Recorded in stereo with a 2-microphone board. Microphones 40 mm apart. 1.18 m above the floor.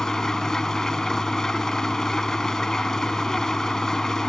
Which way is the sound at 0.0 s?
10° left (ahead or behind).